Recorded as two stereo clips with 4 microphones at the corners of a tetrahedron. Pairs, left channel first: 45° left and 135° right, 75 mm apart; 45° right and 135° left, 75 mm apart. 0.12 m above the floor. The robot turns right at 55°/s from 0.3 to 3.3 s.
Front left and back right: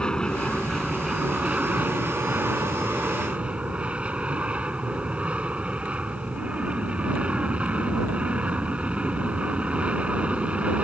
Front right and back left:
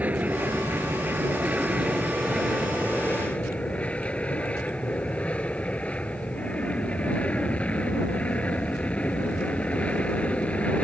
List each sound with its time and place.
0.0 s an aircraft: 105° left; by 10.8 s 90° right